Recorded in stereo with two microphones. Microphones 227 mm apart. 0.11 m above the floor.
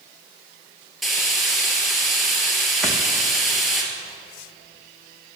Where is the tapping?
Centre (ahead or behind), 2.5 m.